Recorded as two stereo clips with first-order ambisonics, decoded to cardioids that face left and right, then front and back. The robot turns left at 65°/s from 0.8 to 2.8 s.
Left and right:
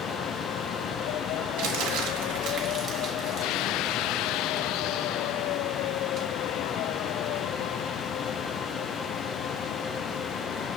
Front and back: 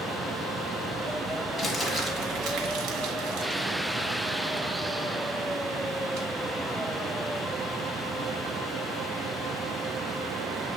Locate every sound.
1.6 s crumpling: 75° right, 1.3 m; by 6.3 s 155° right, 1.3 m